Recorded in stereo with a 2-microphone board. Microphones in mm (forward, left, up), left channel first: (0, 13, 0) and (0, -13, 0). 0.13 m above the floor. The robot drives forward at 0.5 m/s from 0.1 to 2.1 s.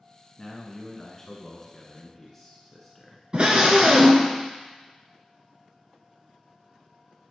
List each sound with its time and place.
0.4 s a man speaking: 10° left (ahead or behind), 1.0 m
3.3 s a scream: 40° right (ahead or behind), 1.4 m